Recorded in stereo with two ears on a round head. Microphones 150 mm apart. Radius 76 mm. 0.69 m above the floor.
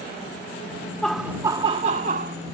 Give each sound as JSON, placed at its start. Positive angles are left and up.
{"t": 1.0, "sound": "laughter", "side_deg": 5}